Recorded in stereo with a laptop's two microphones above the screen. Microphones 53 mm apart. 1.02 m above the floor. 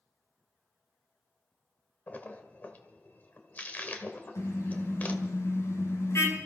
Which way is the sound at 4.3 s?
80° left.